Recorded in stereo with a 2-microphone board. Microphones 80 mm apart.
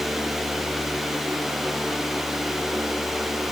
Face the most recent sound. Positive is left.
No sound to turn to.